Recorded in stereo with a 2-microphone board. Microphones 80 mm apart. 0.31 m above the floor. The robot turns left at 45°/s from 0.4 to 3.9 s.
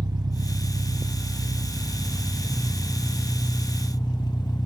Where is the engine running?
110° right, 0.8 m; by 4.7 s 90° left, 0.8 m.